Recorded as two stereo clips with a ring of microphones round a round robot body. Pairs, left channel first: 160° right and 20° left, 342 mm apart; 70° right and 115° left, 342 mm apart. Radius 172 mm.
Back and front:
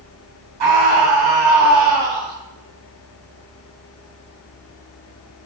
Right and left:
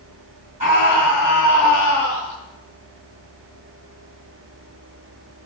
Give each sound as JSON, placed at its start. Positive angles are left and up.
{"t": 0.6, "sound": "a scream", "azimuth_deg": 40, "distance_m": 3.5}